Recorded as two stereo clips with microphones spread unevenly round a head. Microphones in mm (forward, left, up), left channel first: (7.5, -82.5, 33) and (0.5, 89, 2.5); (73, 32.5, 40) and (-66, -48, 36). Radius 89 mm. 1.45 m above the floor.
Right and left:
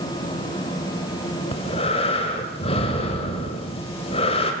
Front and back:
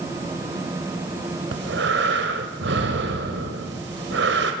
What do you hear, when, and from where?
1.5 s breathing: 140° right, 3.5 m